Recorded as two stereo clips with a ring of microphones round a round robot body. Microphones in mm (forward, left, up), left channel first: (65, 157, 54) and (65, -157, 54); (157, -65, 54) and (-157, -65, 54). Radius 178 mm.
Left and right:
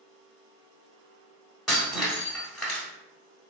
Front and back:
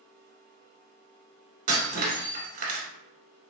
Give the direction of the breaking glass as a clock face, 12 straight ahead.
6 o'clock.